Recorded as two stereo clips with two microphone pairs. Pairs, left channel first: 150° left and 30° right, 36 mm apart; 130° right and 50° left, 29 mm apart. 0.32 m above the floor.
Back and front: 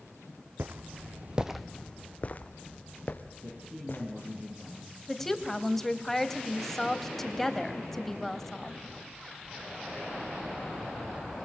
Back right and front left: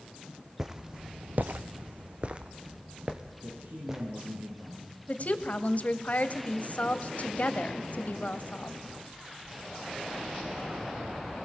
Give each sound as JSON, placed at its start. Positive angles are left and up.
{"t": 0.6, "sound": "footsteps", "azimuth_deg": -20, "distance_m": 1.2}
{"t": 3.4, "sound": "a man speaking", "azimuth_deg": 20, "distance_m": 8.0}
{"t": 5.1, "sound": "a woman speaking", "azimuth_deg": -125, "distance_m": 1.7}